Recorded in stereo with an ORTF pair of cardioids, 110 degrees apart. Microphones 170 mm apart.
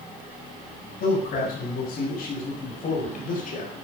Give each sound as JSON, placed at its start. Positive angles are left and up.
{"t": 1.0, "sound": "a man speaking", "azimuth_deg": 60, "distance_m": 9.0}